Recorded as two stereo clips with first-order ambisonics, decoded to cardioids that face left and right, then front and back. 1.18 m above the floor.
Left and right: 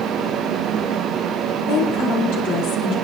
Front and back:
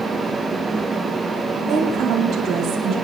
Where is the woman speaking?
120° left, 2.5 m.